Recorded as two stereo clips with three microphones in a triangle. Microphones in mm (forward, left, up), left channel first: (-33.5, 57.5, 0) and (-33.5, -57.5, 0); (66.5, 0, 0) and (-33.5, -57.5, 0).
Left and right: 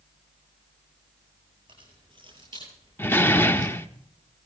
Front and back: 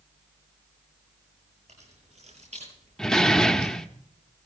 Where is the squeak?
I don't hear a squeak.